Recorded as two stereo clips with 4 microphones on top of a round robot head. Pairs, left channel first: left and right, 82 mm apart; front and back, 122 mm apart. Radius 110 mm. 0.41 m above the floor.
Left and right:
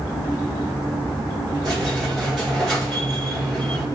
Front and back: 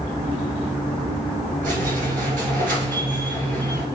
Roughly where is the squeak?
Behind.